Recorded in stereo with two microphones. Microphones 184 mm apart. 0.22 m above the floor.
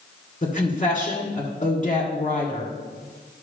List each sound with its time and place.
0.4 s a woman speaking: 35° left (ahead or behind), 2 m